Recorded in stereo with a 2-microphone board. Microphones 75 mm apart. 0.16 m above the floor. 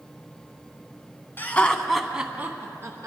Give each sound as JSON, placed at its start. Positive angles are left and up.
{"t": 1.4, "sound": "laughter", "side_deg": 25, "distance_m": 1.2}